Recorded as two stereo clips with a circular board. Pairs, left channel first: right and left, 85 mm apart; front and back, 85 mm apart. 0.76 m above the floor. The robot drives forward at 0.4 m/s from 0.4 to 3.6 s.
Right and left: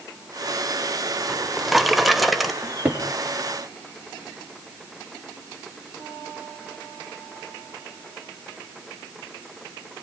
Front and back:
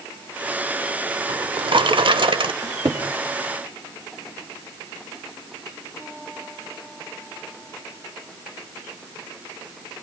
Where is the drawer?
Straight behind, 0.7 m.